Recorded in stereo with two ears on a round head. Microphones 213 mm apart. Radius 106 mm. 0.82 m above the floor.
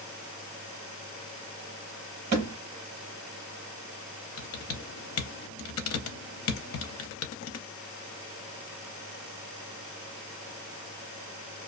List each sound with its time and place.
2.3 s a thud: 45° right (ahead or behind), 1.1 m
4.4 s typing on a keyboard: 60° left (ahead or behind), 0.5 m